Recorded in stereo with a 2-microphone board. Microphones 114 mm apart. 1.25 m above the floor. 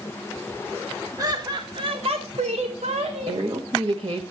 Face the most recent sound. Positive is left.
turn(degrees=-50)  # may be behind; listen again after turning